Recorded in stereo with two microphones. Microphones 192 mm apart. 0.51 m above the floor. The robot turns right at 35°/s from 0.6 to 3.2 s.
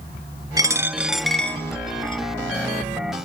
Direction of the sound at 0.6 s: 20° right (ahead or behind).